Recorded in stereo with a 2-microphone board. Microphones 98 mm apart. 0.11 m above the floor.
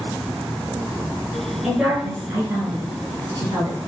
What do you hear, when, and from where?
1.6 s a woman speaking: 5° right (ahead or behind), 1.6 m; by 3.8 s 45° right (ahead or behind), 2 m